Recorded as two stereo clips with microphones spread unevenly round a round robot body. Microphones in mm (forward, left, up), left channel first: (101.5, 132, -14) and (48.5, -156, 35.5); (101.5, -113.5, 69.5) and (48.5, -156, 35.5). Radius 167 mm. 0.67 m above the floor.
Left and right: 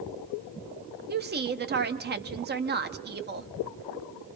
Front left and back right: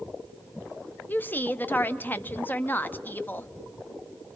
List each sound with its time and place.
1.1 s a woman speaking: 50° right, 1.1 m